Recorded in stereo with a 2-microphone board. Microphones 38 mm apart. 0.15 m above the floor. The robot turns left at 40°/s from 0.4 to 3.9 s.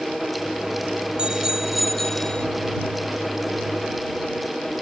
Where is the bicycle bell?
155° right; by 2.5 s 155° left.